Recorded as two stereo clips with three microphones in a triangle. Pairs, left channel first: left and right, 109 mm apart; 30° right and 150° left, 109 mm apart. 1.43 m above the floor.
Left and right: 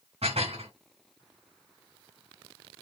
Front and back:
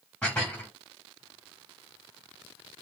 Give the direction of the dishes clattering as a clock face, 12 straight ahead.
4 o'clock.